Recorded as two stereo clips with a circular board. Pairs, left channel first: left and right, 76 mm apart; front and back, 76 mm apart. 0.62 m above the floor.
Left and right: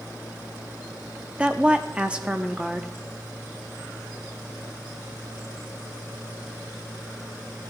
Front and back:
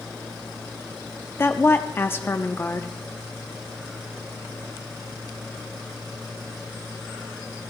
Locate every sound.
1.4 s a woman speaking: 25° right, 0.6 m